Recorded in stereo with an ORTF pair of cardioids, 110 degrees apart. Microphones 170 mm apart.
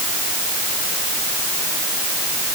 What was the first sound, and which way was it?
Only background noise.